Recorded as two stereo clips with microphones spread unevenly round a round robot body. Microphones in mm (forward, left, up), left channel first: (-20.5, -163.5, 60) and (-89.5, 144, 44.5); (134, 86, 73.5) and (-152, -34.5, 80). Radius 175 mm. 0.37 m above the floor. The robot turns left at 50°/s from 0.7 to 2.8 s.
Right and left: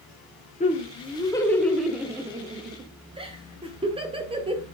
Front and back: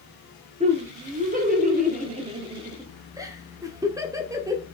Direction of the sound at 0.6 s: 120° right.